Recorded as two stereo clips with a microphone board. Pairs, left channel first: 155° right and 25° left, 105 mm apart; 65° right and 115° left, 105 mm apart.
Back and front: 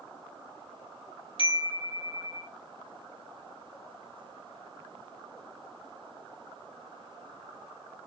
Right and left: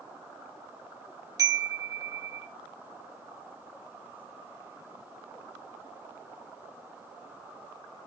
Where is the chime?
170° left, 3 m.